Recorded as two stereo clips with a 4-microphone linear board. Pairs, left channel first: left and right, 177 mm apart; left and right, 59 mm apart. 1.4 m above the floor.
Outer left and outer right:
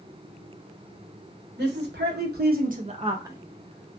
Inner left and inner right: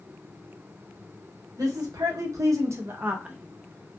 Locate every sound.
1.6 s a woman speaking: 75° right (ahead or behind), 1.1 m; by 4.0 s 25° left (ahead or behind), 0.6 m